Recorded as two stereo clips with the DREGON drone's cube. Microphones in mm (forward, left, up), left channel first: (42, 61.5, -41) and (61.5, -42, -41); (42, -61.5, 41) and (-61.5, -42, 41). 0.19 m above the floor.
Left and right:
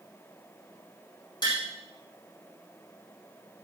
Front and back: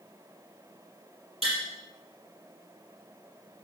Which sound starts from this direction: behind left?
Tapping, at 1.4 s.